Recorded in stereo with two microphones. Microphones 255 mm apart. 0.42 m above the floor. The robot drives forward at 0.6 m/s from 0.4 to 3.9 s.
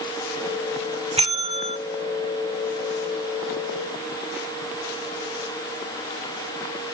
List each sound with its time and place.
1.2 s a bell: 25° right (ahead or behind), 1.3 m